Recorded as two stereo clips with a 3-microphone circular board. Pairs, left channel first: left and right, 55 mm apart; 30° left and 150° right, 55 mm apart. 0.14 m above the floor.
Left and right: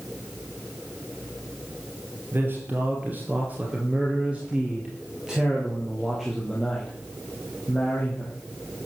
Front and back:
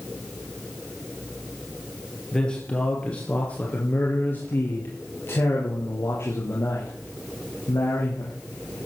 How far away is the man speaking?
About 2.5 m.